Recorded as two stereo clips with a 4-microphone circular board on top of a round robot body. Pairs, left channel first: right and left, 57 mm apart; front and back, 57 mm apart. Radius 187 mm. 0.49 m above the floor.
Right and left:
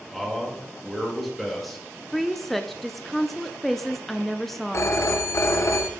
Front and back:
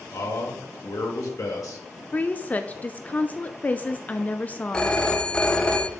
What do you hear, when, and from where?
0.1 s a man speaking: straight ahead, 2.5 m
2.1 s a woman speaking: 5° right, 0.7 m
4.7 s a phone ringing: 75° right, 1.0 m